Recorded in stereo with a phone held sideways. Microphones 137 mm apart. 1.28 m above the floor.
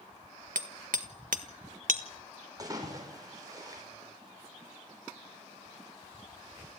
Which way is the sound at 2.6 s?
30° right (ahead or behind).